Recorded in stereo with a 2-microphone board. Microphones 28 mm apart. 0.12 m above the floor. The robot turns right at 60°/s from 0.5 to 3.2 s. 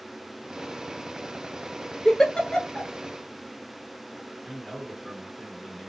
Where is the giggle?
20° left (ahead or behind), 0.6 m; by 2.9 s 45° left (ahead or behind), 0.6 m.